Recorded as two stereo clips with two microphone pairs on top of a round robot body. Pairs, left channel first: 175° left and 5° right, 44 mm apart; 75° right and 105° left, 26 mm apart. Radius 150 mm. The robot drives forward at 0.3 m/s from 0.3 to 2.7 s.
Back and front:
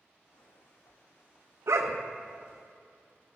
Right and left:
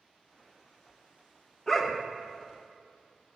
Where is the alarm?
No alarm in this recording.